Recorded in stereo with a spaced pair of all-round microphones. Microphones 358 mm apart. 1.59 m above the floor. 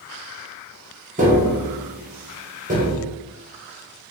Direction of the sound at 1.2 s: 20° right (ahead or behind).